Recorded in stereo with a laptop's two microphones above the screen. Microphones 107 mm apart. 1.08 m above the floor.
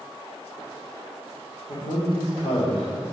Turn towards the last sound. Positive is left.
turn(degrees=70)  # may be behind; listen again after turning